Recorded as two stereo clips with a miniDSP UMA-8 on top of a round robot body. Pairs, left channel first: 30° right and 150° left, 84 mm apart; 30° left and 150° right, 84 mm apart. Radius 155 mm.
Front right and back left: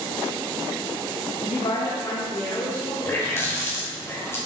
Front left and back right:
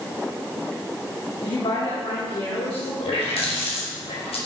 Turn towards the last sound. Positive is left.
turn(degrees=35)